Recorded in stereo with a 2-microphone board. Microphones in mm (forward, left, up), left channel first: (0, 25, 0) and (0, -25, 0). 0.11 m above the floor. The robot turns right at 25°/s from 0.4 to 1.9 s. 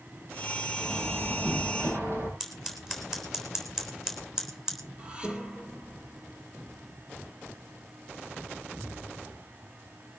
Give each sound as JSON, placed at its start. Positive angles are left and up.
{"t": 0.8, "sound": "a door slam", "side_deg": -85, "distance_m": 9.5}
{"t": 2.4, "sound": "scissors", "side_deg": -10, "distance_m": 3.5}
{"t": 5.0, "sound": "dishes clattering", "side_deg": -25, "distance_m": 2.5}